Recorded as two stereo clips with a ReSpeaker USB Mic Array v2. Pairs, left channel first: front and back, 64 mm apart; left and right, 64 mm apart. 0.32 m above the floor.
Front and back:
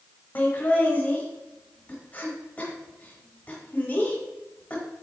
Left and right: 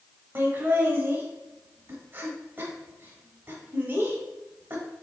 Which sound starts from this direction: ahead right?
Laughter, at 0.3 s.